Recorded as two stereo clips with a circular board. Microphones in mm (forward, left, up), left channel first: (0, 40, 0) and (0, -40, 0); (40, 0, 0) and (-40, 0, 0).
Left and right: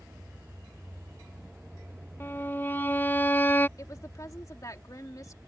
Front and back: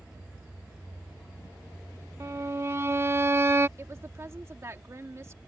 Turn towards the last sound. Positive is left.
turn(degrees=130)